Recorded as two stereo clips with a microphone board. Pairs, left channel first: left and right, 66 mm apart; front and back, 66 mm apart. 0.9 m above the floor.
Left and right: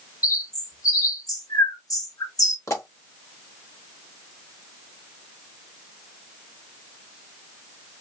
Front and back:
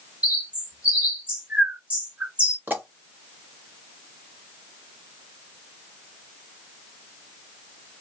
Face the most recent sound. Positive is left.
turn(degrees=125)